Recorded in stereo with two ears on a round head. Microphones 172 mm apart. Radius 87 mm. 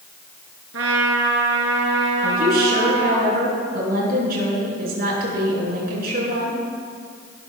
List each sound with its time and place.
0.7 s a trumpet: 75° right (ahead or behind), 2.5 m
2.2 s a woman speaking: 50° right (ahead or behind), 6.5 m